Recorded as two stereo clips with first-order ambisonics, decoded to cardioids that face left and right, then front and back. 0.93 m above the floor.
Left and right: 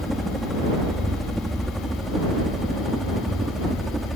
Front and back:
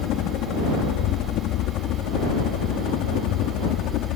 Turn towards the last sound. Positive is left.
turn(degrees=-5)